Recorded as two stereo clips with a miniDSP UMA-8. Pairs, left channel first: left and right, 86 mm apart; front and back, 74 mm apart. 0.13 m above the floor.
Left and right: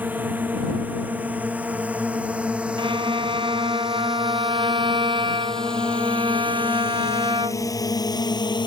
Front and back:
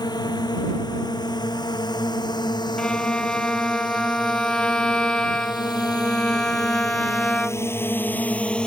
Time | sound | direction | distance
0.0 | a drone | 20° right | ?
2.8 | a violin | 80° right | ?